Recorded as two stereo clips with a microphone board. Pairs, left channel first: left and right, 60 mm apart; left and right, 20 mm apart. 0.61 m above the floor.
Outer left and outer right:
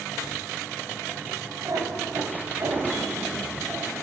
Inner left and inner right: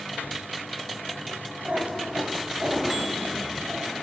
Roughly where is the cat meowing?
Right.